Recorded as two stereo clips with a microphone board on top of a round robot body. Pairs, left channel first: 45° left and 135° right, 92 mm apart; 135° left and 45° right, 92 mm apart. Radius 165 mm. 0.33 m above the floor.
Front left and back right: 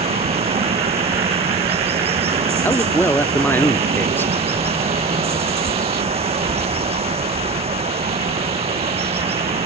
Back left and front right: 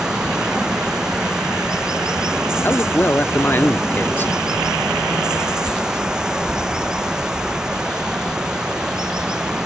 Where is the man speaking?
90° left.